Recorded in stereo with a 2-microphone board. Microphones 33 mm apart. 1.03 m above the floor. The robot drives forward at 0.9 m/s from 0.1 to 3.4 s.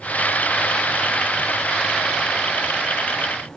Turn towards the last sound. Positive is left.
No sound to turn to.